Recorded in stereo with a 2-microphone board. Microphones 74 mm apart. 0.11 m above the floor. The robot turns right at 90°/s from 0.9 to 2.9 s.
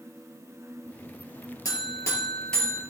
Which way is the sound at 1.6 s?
90° left.